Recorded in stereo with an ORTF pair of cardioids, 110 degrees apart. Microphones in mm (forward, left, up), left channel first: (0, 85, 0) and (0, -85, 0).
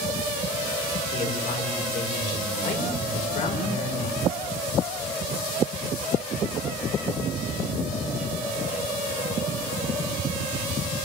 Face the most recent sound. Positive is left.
turn(degrees=55)